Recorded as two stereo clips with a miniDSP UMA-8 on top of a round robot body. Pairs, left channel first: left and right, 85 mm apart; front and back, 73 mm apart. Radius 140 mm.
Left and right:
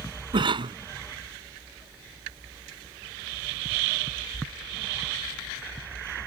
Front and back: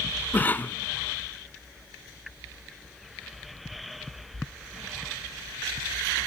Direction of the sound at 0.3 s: 65° right.